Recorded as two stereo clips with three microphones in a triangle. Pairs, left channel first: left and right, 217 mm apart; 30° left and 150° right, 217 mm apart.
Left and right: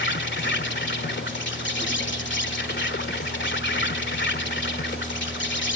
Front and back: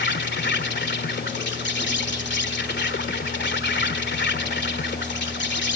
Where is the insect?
60° left.